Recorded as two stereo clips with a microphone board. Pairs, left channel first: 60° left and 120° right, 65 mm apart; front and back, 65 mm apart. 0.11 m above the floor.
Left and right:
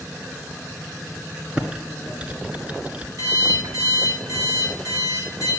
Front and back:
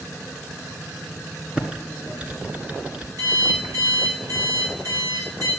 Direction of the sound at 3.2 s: 145° right.